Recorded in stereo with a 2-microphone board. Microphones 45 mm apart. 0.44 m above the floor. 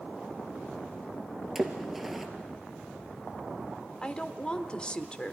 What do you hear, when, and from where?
1.6 s a splash: 5° right (ahead or behind), 1.8 m
4.0 s a woman speaking: 20° left (ahead or behind), 0.9 m